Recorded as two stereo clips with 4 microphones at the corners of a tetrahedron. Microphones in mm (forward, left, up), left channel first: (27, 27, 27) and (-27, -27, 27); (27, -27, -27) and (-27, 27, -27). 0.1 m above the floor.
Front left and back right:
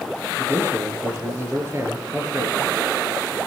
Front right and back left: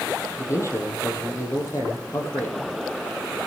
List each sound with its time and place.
0.4 s a man speaking: 90° right, 2.5 m